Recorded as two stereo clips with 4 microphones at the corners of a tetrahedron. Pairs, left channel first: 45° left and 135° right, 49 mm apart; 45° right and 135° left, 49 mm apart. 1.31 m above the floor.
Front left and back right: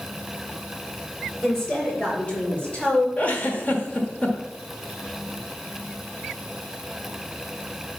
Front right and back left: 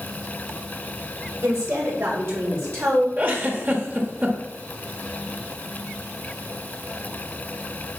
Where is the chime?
I don't hear a chime.